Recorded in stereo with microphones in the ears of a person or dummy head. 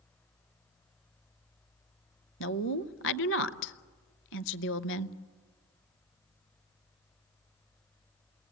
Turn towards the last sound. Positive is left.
turn(degrees=60)  # may be behind; listen again after turning